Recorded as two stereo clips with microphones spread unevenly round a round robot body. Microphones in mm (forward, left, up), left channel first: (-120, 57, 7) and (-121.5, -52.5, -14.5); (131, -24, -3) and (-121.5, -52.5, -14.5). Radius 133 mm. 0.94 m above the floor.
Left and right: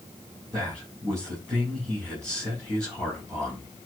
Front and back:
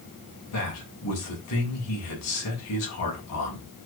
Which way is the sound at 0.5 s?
15° right.